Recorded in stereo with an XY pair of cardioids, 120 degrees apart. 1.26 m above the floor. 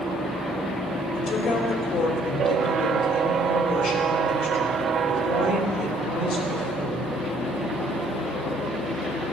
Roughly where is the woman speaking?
Ahead left.